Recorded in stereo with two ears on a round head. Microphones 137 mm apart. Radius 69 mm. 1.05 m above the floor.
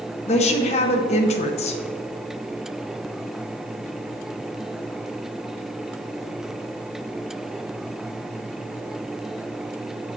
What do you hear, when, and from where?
0.3 s a woman speaking: 45° left (ahead or behind), 0.7 m